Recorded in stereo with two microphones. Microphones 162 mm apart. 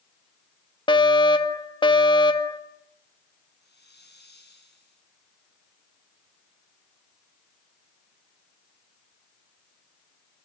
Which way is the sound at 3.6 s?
75° left (ahead or behind).